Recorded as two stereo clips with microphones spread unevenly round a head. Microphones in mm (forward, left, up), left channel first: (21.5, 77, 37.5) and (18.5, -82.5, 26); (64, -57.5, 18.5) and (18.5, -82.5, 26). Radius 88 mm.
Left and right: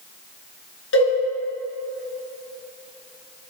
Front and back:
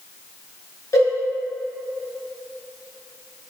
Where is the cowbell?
95° left, 3.5 m.